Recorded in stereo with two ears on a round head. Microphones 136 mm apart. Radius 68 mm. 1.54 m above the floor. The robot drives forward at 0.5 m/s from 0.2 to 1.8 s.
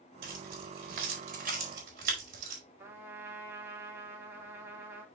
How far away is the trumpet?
About 2.5 m.